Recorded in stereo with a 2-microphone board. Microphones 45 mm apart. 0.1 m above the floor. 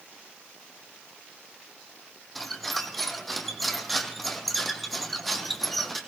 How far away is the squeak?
About 1.3 m.